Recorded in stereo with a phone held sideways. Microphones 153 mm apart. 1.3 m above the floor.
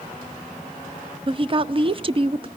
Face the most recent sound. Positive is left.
turn(degrees=-35)  # may be behind; listen again after turning